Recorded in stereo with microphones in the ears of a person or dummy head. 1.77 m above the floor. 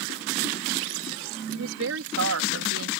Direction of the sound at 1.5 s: 85° right.